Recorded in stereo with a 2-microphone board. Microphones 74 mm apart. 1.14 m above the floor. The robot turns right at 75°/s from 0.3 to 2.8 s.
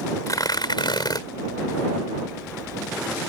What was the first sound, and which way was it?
Tearing paper, 50° left.